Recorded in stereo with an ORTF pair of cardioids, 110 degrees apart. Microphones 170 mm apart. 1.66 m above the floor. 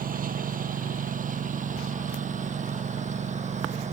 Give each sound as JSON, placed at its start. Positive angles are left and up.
{"t": 0.0, "sound": "a lawn mower", "azimuth_deg": -55}